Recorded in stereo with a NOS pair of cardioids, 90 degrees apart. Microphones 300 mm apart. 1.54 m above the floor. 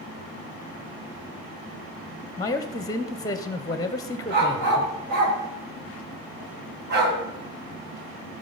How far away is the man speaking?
About 0.7 m.